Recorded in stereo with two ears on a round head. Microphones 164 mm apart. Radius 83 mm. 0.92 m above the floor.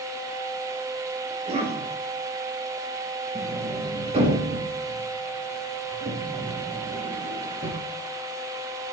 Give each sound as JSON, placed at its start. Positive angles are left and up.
{"t": 1.3, "sound": "a cough", "side_deg": -40, "distance_m": 4.5}
{"t": 3.4, "sound": "a sliding door", "side_deg": -35, "distance_m": 4.0}